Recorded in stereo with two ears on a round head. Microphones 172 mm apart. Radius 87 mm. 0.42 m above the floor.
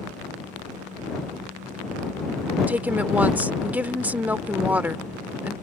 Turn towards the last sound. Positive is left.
turn(degrees=-10)  # may be behind; listen again after turning